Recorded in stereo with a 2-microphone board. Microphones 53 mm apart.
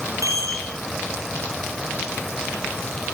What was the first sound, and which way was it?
A chime, 75° right (ahead or behind).